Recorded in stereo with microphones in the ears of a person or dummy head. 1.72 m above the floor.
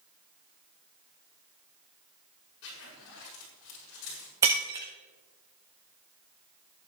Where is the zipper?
65° left (ahead or behind), 7.5 m.